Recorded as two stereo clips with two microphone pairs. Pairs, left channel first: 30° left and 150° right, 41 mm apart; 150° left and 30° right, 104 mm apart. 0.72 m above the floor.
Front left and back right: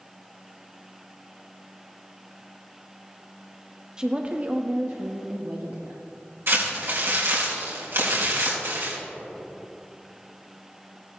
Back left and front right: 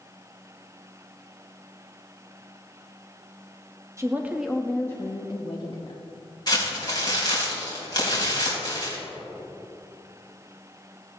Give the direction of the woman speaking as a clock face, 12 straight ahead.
3 o'clock.